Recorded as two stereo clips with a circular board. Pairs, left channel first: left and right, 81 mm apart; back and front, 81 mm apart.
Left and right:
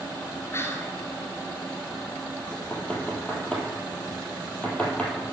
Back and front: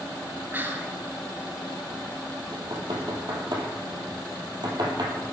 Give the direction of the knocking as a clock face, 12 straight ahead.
11 o'clock.